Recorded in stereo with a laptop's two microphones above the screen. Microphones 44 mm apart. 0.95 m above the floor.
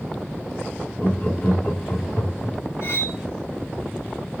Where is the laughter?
45° left (ahead or behind), 1.8 m.